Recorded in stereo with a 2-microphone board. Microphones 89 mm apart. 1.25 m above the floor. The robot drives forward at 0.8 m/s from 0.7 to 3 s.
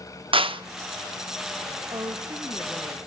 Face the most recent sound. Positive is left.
turn(degrees=-25)  # may be behind; listen again after turning